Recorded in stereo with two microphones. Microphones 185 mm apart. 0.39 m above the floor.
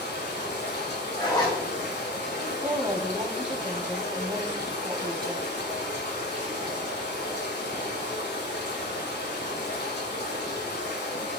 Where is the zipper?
20° left (ahead or behind), 6.5 m.